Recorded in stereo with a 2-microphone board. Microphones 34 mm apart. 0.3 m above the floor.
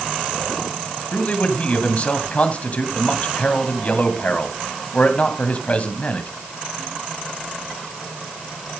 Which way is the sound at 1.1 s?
40° left (ahead or behind).